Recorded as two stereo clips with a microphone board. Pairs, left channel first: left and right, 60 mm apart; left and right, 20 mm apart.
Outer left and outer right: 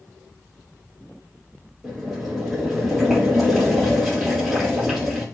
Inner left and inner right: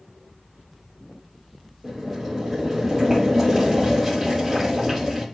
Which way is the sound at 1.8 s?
5° right (ahead or behind).